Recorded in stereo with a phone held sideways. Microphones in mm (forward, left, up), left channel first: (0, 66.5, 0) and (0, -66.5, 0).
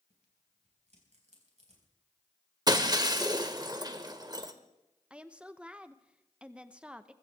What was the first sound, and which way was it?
Tearing paper, 55° right (ahead or behind).